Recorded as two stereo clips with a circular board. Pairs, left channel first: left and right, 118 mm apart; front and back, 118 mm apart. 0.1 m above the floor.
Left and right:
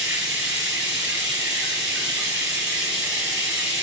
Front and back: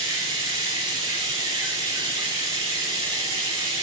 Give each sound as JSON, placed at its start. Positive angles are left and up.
{"t": 0.0, "sound": "running water", "azimuth_deg": -165, "distance_m": 1.1}